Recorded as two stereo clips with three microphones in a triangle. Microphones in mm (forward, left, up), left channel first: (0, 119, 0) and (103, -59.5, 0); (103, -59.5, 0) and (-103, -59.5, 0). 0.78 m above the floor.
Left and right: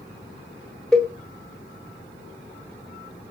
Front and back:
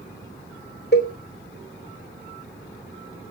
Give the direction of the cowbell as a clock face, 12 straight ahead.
11 o'clock.